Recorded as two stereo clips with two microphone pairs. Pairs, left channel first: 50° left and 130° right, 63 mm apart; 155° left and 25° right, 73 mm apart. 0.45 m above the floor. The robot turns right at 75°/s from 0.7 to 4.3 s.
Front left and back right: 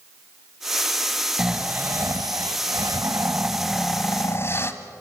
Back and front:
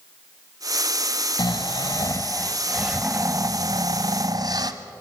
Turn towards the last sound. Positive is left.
turn(degrees=0)